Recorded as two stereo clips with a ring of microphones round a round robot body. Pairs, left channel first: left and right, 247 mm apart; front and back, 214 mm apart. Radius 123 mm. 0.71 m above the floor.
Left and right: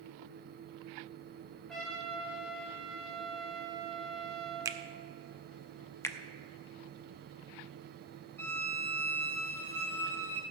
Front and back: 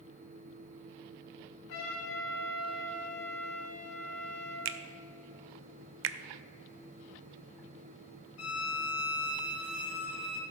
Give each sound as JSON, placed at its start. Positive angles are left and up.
{"t": 1.7, "sound": "a trumpet", "azimuth_deg": 0, "distance_m": 3.5}
{"t": 4.7, "sound": "a finger snap", "azimuth_deg": -165, "distance_m": 0.6}
{"t": 6.0, "sound": "a finger snap", "azimuth_deg": 170, "distance_m": 0.6}
{"t": 8.4, "sound": "a violin", "azimuth_deg": 10, "distance_m": 1.4}